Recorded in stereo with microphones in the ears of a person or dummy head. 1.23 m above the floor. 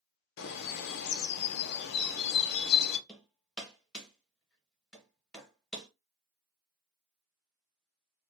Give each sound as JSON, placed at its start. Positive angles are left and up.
{"t": 0.4, "sound": "a bird", "side_deg": 60, "distance_m": 0.5}
{"t": 3.1, "sound": "hammering", "side_deg": 5, "distance_m": 0.6}